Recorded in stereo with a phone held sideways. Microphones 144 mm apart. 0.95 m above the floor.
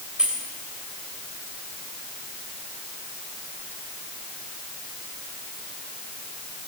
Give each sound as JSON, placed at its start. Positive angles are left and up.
{"t": 0.2, "sound": "keys jangling", "side_deg": -5, "distance_m": 3.0}